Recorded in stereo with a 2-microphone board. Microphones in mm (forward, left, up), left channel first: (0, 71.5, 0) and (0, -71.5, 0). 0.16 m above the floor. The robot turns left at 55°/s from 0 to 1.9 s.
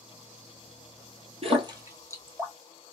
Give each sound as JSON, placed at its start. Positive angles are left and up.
{"t": 1.4, "sound": "a splash", "side_deg": -45, "distance_m": 0.7}